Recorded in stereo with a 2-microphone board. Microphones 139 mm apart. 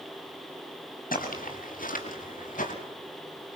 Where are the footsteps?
90° left, 5.5 m; by 2.7 s 70° left (ahead or behind), 6.5 m.